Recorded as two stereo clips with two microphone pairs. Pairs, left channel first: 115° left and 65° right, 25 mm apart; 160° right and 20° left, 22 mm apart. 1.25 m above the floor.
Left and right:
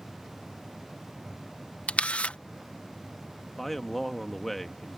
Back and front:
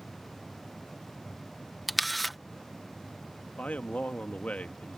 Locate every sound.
1.9 s a camera shutter: 110° left
3.5 s a man speaking: 165° right